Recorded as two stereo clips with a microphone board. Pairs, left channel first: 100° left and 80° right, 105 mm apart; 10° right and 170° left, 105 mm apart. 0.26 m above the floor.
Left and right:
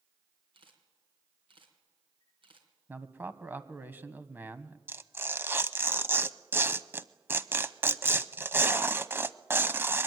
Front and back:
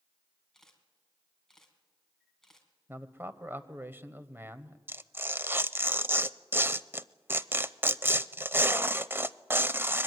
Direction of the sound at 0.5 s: 95° right.